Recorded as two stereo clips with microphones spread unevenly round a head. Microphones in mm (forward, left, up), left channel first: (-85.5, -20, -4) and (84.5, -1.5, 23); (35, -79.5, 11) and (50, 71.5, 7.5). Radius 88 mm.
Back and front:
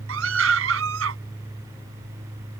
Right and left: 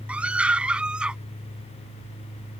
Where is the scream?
Straight ahead.